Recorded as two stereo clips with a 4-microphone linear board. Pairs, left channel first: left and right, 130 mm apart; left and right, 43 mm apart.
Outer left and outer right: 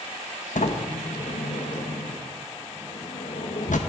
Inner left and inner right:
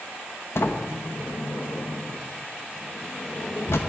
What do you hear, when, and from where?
0.6 s a sliding door: 75° left (ahead or behind), 1.0 m